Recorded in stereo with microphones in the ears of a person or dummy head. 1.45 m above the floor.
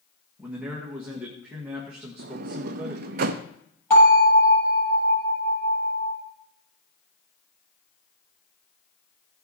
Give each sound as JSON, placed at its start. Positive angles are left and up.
{"t": 0.4, "sound": "a man speaking", "side_deg": -5, "distance_m": 1.5}
{"t": 2.2, "sound": "a sliding door", "side_deg": -50, "distance_m": 0.5}
{"t": 3.9, "sound": "a bell", "side_deg": 15, "distance_m": 7.5}